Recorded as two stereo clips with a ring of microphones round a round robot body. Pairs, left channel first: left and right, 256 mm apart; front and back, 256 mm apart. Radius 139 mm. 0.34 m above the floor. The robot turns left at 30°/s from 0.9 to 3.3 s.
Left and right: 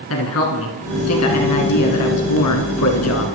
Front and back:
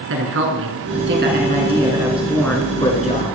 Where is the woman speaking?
135° left, 3.5 m; by 3.2 s 60° left, 3.5 m.